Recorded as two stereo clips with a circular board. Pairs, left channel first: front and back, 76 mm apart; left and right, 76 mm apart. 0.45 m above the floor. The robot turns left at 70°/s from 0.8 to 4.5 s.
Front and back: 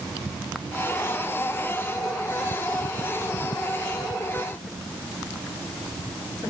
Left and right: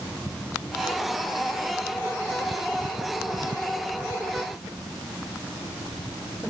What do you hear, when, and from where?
Only background noise.